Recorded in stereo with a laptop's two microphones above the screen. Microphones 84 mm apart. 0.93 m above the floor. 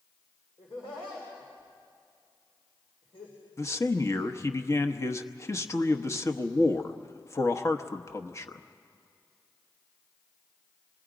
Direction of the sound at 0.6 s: 70° left (ahead or behind).